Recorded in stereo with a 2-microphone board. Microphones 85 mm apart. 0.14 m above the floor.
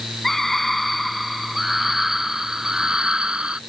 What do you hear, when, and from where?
0.2 s a scream: 5° left (ahead or behind); by 3.6 s 10° right (ahead or behind)